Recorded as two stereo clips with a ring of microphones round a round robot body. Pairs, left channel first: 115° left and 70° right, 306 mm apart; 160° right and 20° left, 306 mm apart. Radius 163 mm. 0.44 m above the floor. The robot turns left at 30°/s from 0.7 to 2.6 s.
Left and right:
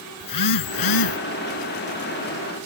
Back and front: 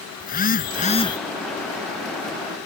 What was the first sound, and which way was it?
A phone buzzing, 140° left.